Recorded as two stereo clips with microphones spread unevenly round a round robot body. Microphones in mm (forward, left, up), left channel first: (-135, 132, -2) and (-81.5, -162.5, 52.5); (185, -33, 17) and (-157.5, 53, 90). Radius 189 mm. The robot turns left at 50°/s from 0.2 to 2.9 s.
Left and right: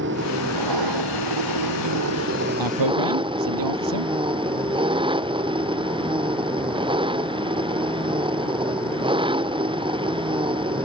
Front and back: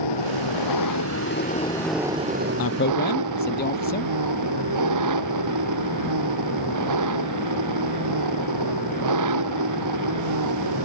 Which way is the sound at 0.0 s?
20° right.